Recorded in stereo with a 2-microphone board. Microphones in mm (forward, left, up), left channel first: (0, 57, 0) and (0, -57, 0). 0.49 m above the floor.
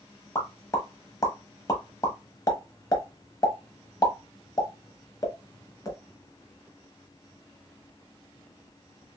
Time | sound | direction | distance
0.3 | a pop | 35° left (ahead or behind) | 0.9 m